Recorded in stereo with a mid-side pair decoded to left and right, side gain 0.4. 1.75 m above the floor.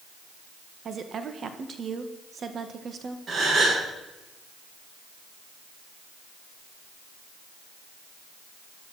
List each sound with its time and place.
0.8 s a woman speaking: 50° right, 1.9 m
3.3 s a gasp: 50° right, 8.5 m